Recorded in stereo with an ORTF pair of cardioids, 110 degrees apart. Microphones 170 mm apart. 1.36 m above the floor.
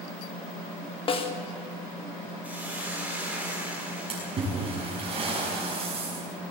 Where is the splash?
35° right, 6.5 m.